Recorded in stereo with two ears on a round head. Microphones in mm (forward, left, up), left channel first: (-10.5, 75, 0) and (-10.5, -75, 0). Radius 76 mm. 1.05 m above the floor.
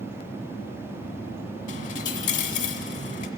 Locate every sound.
1.7 s a dropped coin: 50° left (ahead or behind), 1.3 m